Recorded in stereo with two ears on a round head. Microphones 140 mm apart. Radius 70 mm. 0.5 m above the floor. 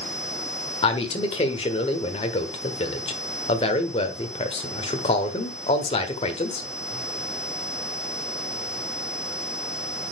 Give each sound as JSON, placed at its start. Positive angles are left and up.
{"t": 0.8, "sound": "a man speaking", "side_deg": 35, "distance_m": 1.4}